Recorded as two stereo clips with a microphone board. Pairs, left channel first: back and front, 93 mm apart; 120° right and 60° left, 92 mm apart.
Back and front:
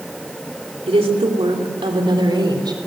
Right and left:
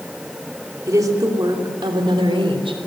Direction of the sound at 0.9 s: 5° left.